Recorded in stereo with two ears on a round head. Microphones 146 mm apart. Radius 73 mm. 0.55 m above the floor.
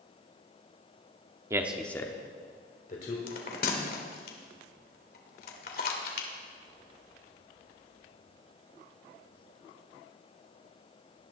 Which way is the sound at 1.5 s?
20° right (ahead or behind).